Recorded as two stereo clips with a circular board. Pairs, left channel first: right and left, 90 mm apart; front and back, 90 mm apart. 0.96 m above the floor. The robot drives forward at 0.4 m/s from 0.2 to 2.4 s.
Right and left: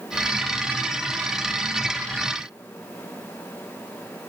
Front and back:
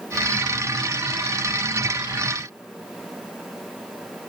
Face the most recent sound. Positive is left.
No sound to turn to.